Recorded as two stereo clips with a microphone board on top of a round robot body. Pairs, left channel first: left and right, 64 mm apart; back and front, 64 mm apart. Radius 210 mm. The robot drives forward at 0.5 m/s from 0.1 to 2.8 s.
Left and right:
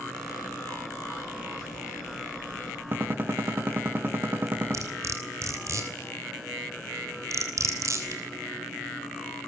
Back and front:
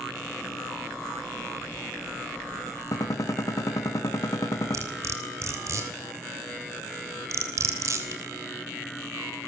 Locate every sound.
2.9 s a gunshot: 145° right, 3 m
4.7 s cutlery clinking: 45° right, 3 m